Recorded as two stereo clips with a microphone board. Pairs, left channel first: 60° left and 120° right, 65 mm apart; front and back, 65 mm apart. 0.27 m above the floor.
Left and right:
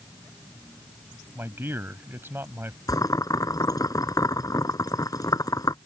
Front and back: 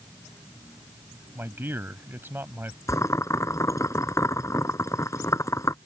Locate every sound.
1.4 s a man speaking: 150° right
2.9 s boiling: 40° left